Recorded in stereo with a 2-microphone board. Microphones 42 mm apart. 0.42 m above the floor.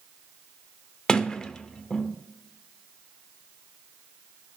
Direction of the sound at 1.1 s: 15° left (ahead or behind).